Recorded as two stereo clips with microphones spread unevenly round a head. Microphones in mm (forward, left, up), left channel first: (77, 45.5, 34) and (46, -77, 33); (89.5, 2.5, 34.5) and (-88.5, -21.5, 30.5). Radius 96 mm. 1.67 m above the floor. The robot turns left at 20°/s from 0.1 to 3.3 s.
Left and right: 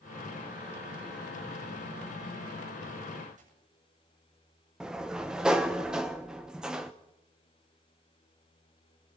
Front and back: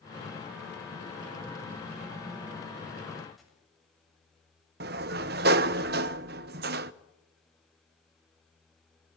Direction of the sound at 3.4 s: 85° right.